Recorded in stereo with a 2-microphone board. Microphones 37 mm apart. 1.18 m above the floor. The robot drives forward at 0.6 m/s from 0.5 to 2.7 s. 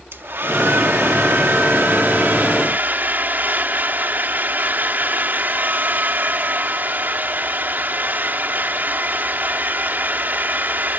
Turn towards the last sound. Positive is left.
turn(degrees=-55)  # may be behind; listen again after turning